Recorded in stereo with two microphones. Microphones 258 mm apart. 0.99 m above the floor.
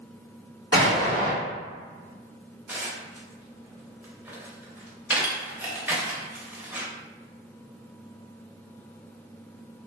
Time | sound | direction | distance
0.7 | an explosion | 55° left (ahead or behind) | 1.9 m
2.7 | dishes clattering | 5° right (ahead or behind) | 0.6 m